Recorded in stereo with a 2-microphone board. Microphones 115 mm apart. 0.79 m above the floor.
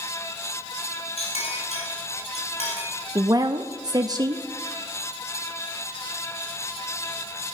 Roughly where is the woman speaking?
Right.